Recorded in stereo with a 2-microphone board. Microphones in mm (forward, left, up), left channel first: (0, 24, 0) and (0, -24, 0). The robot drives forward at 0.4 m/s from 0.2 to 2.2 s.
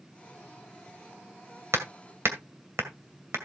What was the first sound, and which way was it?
Hammering, 75° right (ahead or behind).